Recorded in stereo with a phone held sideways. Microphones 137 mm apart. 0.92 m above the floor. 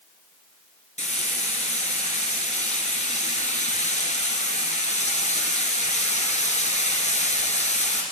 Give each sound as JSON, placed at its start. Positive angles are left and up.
{"t": 1.0, "sound": "frying", "side_deg": 55, "distance_m": 2.5}